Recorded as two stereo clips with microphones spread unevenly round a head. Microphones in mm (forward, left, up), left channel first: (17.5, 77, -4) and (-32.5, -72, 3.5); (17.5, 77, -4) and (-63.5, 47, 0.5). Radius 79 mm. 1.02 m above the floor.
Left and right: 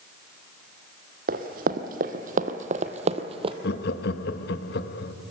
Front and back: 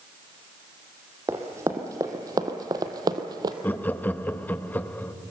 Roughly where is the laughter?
Left.